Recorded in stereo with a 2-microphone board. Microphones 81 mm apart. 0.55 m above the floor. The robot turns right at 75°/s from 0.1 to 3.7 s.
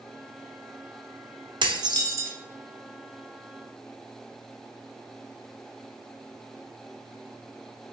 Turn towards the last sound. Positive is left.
turn(degrees=75)